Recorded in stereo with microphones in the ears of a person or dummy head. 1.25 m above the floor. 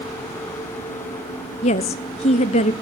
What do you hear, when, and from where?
1.6 s a woman speaking: 30° left (ahead or behind), 0.6 m